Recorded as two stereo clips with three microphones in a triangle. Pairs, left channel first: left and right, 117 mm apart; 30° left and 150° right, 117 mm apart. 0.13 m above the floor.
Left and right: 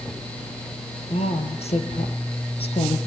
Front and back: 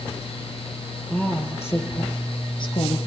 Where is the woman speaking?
105° left, 4 m; by 3.0 s 55° left, 3.5 m.